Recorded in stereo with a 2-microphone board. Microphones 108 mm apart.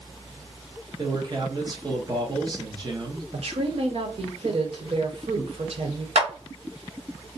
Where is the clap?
75° right (ahead or behind), 1.1 m.